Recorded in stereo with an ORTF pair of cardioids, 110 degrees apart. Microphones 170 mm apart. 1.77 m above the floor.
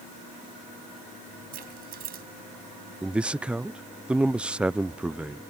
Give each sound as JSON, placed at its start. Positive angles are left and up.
{"t": 1.5, "sound": "keys jangling", "azimuth_deg": -65}
{"t": 3.0, "sound": "a man speaking", "azimuth_deg": -5}